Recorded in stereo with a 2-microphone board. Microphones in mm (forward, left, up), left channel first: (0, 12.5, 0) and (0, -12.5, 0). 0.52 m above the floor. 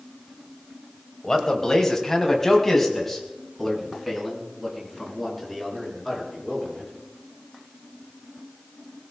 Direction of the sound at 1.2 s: 25° left (ahead or behind).